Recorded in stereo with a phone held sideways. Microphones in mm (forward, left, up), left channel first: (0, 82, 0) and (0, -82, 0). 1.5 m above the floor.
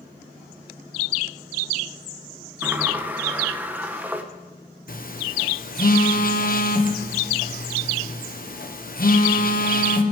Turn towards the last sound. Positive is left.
turn(degrees=60)  # may be behind; listen again after turning